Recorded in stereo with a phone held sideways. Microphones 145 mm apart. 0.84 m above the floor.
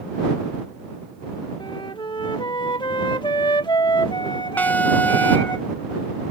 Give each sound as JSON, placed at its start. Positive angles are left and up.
{"t": 1.6, "sound": "a flute", "side_deg": 30}
{"t": 4.6, "sound": "an alarm", "side_deg": 10}